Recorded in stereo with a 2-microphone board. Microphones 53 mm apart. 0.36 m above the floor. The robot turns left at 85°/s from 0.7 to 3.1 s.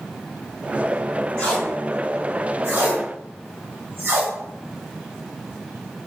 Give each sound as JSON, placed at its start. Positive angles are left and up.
{"t": 1.4, "sound": "tape being pulled", "side_deg": 20, "distance_m": 1.3}